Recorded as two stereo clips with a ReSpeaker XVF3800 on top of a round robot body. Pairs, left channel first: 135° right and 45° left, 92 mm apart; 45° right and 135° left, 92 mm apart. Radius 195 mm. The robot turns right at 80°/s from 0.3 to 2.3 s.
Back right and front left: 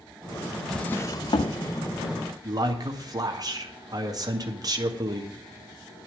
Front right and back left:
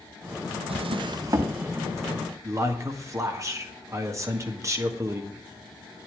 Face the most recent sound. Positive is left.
turn(degrees=85)